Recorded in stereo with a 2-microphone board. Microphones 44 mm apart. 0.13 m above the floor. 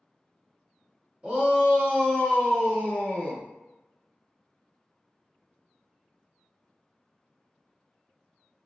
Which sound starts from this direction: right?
A shout, at 1.2 s.